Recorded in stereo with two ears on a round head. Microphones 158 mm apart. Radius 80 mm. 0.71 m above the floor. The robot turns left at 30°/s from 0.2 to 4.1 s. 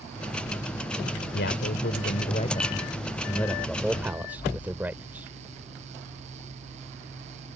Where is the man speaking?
75° left; by 5.3 s 10° right.